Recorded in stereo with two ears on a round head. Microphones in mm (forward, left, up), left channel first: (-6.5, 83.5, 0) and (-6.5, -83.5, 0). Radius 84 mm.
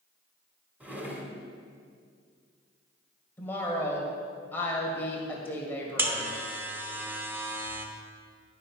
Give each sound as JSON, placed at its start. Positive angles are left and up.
{"t": 0.8, "sound": "a drawer", "side_deg": -10, "distance_m": 1.4}
{"t": 3.4, "sound": "a woman speaking", "side_deg": 10, "distance_m": 1.8}
{"t": 6.0, "sound": "a buzzer", "side_deg": -10, "distance_m": 0.8}